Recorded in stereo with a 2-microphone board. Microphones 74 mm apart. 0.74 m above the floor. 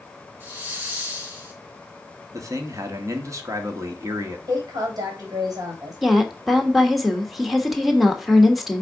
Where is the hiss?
25° right (ahead or behind), 2.5 m.